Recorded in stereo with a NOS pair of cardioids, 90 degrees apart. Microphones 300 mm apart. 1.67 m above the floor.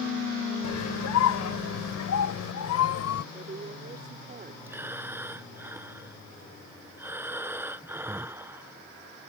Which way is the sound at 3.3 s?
30° right.